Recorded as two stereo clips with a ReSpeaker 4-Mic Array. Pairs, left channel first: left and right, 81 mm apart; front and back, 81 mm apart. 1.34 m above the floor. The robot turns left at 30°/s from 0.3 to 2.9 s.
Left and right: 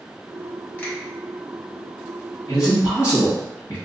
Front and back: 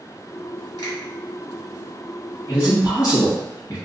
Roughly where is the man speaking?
Ahead left.